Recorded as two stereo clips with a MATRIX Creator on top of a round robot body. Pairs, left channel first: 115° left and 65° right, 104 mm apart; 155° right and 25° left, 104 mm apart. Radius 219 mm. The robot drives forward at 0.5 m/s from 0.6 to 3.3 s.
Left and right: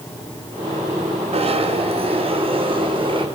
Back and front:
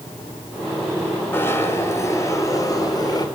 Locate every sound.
1.3 s a zipper: 90° right, 3 m; by 3.3 s 105° right, 3.5 m